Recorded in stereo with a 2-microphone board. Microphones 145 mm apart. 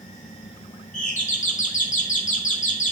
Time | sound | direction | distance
0.9 | a doorbell | 60° left (ahead or behind) | 2.5 m